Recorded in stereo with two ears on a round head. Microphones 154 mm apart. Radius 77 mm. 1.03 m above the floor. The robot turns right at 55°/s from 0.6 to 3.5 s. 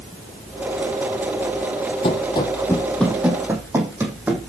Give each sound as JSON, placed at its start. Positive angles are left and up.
{"t": 2.0, "sound": "running footsteps", "side_deg": 35, "distance_m": 1.8}